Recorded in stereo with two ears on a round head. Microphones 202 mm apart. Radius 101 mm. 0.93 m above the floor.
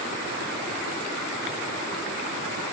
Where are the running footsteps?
No running footsteps in this recording.